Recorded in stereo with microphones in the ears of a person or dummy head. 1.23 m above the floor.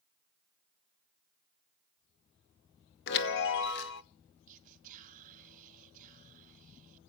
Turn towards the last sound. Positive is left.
turn(degrees=-40)  # may be behind; listen again after turning